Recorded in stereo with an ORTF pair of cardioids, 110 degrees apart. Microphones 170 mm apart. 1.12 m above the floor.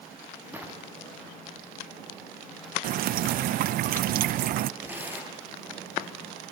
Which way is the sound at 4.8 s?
10° right.